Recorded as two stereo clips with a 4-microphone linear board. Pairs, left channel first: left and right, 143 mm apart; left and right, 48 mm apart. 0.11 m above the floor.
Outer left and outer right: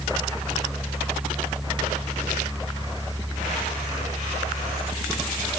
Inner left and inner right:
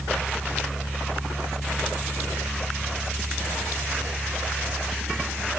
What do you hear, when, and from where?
Only background noise.